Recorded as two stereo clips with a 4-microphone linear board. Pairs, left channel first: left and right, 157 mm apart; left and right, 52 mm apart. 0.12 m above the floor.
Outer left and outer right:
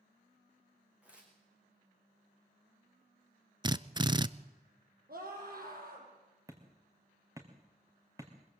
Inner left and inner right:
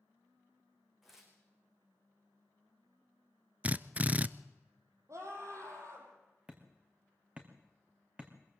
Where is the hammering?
20° right (ahead or behind), 3 m.